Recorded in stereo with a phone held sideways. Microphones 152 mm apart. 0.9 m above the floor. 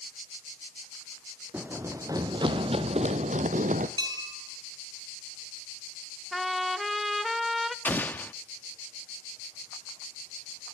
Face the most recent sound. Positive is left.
turn(degrees=10)  # may be behind; listen again after turning